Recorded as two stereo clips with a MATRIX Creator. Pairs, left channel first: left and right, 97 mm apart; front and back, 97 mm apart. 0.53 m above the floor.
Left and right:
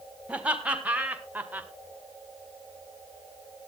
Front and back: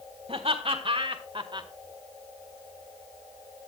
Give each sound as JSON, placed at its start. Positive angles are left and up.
{"t": 0.3, "sound": "laughter", "azimuth_deg": -165, "distance_m": 3.5}